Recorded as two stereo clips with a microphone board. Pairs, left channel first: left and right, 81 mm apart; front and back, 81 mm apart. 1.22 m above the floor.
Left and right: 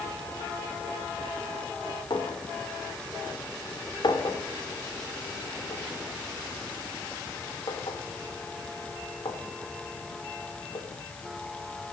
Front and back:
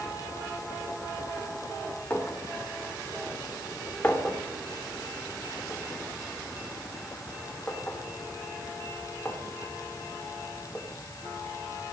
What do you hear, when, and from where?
2.1 s a clink: 70° left, 2 m